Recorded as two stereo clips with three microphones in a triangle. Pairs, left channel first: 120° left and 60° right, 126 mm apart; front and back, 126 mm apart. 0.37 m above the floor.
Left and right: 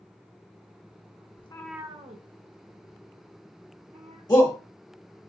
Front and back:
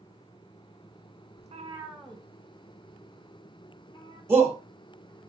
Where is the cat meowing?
160° left, 0.7 m; by 4.2 s 55° right, 3.5 m.